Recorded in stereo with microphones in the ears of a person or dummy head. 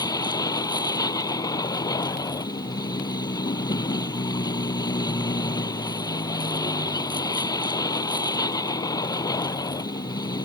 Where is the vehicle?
25° left (ahead or behind).